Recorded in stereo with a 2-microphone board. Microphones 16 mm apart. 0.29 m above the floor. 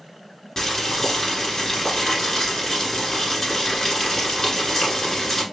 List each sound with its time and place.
0.6 s boiling: 25° left (ahead or behind), 1.2 m